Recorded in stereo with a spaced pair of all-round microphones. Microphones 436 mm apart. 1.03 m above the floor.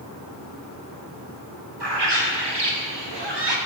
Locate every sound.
1.8 s a bird: 70° right (ahead or behind), 1.5 m